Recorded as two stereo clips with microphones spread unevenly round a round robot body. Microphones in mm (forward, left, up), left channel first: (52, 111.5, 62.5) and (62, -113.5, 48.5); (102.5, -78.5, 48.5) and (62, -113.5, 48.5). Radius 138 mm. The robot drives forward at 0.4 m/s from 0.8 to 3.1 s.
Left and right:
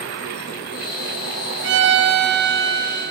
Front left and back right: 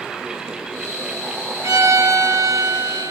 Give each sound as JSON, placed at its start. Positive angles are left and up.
{"t": 1.6, "sound": "a violin", "azimuth_deg": -125, "distance_m": 1.5}